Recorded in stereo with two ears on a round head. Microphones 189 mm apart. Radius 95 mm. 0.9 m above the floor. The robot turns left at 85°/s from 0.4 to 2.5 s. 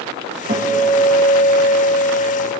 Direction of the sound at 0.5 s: 140° right.